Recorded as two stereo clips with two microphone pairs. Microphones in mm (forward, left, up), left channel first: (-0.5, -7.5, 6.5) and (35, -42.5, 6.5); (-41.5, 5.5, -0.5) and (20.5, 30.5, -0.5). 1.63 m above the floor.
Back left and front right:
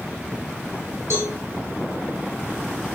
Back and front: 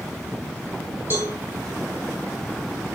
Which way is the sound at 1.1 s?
35° right.